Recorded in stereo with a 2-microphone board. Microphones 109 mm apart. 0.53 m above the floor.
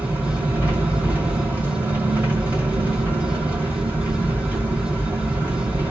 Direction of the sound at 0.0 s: 15° right (ahead or behind).